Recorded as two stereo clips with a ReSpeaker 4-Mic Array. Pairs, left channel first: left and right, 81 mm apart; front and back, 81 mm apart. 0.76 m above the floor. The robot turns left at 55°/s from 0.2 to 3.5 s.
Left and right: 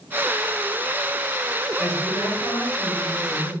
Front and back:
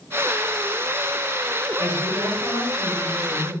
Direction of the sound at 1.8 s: 170° left.